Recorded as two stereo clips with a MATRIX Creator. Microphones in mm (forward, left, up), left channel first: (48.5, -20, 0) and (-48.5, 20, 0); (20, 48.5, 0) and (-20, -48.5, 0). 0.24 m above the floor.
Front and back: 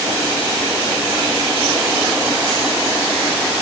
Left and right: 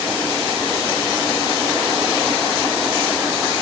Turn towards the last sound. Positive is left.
No sound to turn to.